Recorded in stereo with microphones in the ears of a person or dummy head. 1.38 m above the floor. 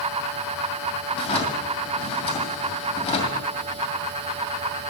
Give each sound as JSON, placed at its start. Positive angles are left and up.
{"t": 1.1, "sound": "a drawer", "side_deg": 35, "distance_m": 2.0}